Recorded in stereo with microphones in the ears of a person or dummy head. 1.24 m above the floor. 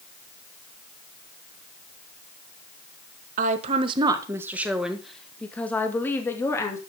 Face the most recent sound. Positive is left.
turn(degrees=15)  # may be behind; listen again after turning